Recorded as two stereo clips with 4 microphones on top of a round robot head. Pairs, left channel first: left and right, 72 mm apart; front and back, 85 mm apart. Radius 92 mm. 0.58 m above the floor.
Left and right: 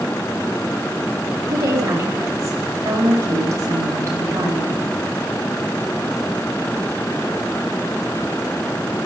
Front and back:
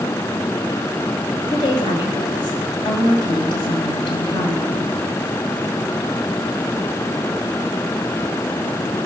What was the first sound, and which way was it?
A woman speaking, 35° right.